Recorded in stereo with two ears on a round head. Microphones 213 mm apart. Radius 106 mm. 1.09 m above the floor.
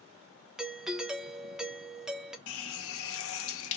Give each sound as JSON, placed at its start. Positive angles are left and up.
{"t": 0.6, "sound": "a doorbell", "side_deg": -5, "distance_m": 0.7}
{"t": 2.5, "sound": "a running tap", "side_deg": 65, "distance_m": 0.6}